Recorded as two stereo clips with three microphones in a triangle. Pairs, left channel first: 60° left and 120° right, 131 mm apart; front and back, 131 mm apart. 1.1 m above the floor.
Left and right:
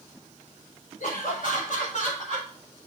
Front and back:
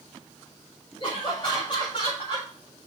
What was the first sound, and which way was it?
Laughter, 50° left.